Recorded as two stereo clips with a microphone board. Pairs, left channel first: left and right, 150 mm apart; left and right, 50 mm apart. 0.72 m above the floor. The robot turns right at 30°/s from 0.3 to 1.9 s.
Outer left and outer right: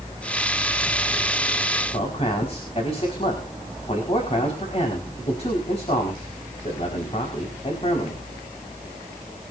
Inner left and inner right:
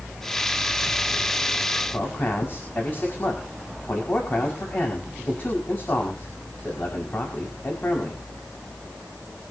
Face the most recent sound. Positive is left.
turn(degrees=45)  # may be behind; listen again after turning